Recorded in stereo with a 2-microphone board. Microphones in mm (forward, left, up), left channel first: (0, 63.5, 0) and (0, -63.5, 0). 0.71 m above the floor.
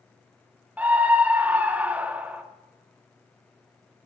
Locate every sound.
0.8 s a scream: 10° right (ahead or behind), 0.6 m